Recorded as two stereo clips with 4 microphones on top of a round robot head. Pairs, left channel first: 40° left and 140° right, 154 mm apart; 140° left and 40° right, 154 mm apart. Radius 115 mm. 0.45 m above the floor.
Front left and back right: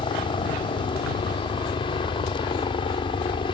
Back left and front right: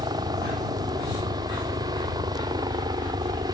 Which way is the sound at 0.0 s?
5° left.